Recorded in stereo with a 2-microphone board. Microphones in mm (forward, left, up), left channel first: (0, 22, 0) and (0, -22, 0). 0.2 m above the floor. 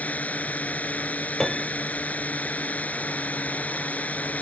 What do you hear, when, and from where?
0.0 s a drone: 35° left (ahead or behind)
1.4 s a piano: 10° left (ahead or behind)